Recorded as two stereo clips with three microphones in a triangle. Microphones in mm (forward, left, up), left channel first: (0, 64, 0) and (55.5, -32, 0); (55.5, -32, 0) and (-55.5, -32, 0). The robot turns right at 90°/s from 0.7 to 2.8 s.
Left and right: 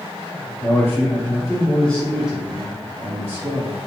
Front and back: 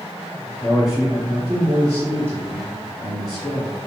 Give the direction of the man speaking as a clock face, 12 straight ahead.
9 o'clock.